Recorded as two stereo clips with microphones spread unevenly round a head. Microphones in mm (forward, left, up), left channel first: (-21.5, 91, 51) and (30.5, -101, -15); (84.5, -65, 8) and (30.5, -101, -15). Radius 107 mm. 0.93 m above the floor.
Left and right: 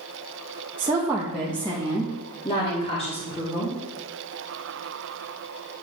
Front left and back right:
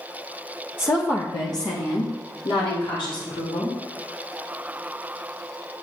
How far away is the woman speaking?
About 1.2 m.